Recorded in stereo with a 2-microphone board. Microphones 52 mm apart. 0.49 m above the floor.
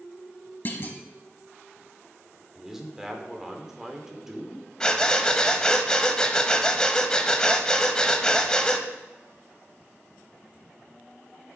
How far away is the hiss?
I don't hear a hiss.